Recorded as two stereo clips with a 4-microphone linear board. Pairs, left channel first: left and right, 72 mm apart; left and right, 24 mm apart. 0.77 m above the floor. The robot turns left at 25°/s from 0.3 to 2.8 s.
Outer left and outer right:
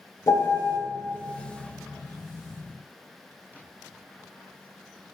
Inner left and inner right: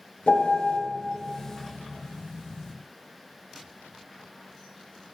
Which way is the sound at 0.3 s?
60° left (ahead or behind).